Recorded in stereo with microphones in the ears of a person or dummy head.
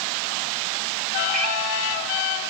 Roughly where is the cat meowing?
Right.